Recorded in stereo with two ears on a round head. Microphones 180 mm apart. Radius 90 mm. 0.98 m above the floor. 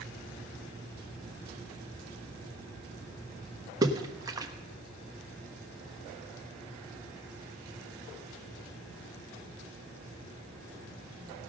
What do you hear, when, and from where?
3.8 s a splash: 20° right (ahead or behind), 1.0 m